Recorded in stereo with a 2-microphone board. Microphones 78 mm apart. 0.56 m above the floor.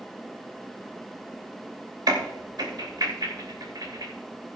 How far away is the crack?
About 2.5 m.